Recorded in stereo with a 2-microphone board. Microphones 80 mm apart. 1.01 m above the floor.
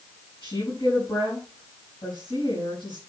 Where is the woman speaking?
75° left (ahead or behind), 7.5 m.